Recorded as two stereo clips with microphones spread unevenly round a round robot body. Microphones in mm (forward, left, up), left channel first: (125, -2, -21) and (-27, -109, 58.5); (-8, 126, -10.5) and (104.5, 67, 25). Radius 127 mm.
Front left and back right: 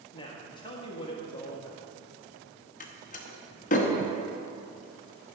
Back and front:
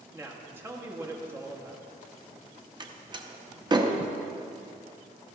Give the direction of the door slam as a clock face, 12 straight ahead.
11 o'clock.